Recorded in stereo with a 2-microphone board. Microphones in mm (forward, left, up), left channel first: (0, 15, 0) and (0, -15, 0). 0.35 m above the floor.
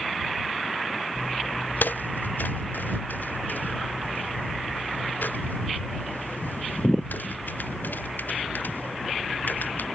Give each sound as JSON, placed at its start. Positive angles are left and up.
{"t": 1.1, "sound": "footsteps", "side_deg": 85}